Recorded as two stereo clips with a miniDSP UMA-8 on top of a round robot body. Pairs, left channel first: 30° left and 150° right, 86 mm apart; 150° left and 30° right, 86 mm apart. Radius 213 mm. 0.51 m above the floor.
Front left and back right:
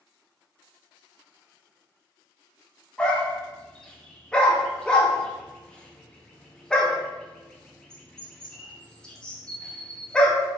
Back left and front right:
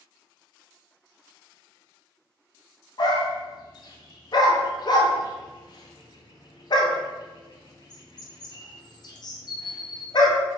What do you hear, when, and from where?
3.0 s a dog barking: 110° left, 0.7 m